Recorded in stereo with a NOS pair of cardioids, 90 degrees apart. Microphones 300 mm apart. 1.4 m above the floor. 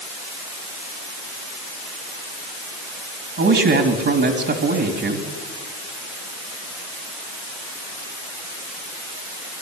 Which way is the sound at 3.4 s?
45° right.